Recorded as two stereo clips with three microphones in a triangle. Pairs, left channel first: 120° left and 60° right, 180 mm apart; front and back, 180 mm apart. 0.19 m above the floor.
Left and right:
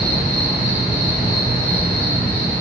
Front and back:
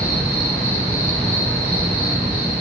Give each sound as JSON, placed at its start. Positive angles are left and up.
{"t": 0.0, "sound": "an insect", "azimuth_deg": -70, "distance_m": 3.5}